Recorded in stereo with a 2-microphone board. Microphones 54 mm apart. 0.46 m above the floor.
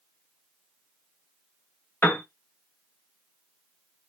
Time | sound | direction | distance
2.0 | a piano | 40° left (ahead or behind) | 0.7 m